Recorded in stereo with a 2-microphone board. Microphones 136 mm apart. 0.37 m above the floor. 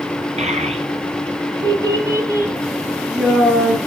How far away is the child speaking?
About 2.5 m.